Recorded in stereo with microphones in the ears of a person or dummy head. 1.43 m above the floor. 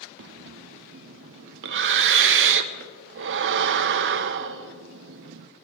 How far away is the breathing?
About 0.6 m.